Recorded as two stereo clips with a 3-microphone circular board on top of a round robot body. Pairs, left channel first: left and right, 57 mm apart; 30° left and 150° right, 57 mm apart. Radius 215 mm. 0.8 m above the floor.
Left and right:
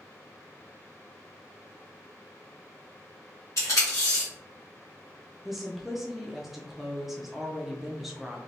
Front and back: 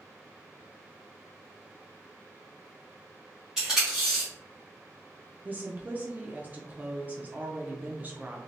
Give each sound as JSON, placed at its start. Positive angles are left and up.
{"t": 3.6, "sound": "tape being pulled", "azimuth_deg": 125, "distance_m": 0.6}
{"t": 5.5, "sound": "a woman speaking", "azimuth_deg": -170, "distance_m": 0.7}